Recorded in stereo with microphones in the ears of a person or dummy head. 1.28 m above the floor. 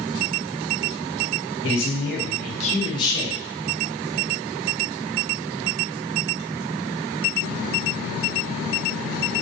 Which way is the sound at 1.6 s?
65° left (ahead or behind).